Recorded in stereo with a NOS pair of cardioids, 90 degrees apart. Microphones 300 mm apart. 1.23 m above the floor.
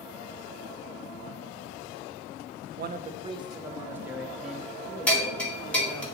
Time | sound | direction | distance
2.8 | a man speaking | 35° right | 0.5 m
5.1 | a bell | 5° left | 2 m